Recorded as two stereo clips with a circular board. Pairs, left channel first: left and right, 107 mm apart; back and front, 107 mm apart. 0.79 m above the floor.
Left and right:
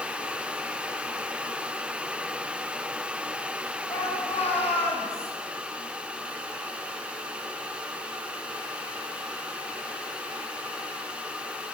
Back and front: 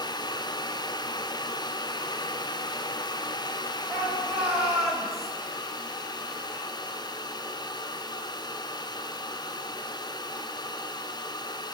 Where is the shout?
85° left, 7 m; by 5.3 s 90° left, 5.5 m.